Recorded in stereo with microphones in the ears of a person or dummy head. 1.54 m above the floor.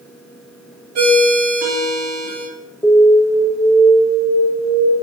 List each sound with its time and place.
0.9 s a ringtone: 60° right (ahead or behind), 3 m
2.8 s an alarm: 10° left (ahead or behind), 1.6 m